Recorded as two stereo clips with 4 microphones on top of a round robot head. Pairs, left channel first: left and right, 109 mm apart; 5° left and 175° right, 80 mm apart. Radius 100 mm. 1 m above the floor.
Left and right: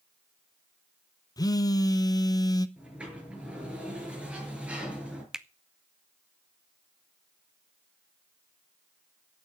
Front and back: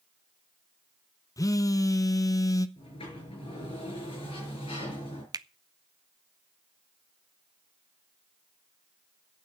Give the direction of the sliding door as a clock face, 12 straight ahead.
12 o'clock.